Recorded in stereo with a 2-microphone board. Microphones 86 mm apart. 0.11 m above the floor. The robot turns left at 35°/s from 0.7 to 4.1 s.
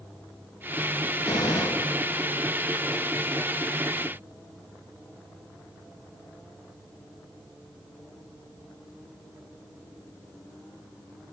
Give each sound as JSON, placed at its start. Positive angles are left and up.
{"t": 1.2, "sound": "a gunshot", "side_deg": 70, "distance_m": 3.0}